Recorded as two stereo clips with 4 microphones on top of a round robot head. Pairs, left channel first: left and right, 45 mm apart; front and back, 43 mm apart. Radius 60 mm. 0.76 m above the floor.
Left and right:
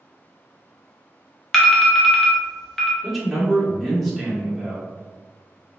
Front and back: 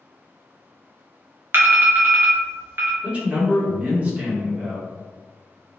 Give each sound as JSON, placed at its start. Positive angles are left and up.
{"t": 1.5, "sound": "an alarm", "azimuth_deg": 170, "distance_m": 0.7}
{"t": 3.0, "sound": "a man speaking", "azimuth_deg": 180, "distance_m": 1.1}